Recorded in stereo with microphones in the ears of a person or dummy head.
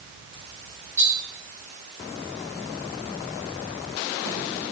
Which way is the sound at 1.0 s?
5° right (ahead or behind).